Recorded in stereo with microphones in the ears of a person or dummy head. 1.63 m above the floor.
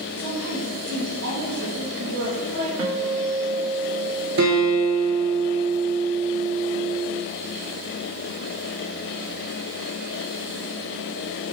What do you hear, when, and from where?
0.2 s a woman speaking: 70° right (ahead or behind), 2.5 m
2.8 s a guitar: 25° right (ahead or behind), 1.1 m
4.4 s a guitar: 55° right (ahead or behind), 1.5 m